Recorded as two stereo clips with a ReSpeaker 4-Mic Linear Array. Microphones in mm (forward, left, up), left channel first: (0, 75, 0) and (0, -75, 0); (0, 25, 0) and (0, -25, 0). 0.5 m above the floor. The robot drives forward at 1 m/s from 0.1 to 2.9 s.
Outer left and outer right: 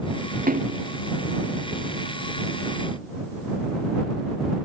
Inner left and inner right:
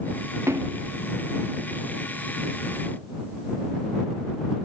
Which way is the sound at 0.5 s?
75° right (ahead or behind).